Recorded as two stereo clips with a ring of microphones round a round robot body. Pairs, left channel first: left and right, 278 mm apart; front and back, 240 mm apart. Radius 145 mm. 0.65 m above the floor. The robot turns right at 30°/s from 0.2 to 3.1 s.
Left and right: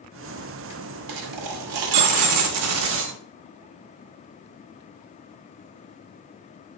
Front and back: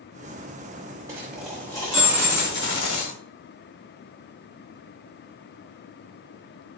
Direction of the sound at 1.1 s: 100° right.